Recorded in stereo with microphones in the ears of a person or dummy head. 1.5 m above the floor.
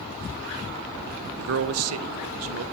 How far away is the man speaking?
About 0.8 m.